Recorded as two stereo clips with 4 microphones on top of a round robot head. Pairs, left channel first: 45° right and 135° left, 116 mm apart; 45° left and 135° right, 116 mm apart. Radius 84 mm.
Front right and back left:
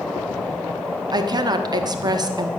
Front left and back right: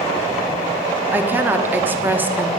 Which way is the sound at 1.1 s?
160° left.